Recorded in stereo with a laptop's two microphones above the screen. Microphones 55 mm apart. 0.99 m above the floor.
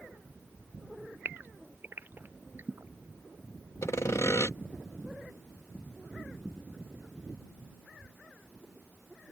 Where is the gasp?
40° right (ahead or behind).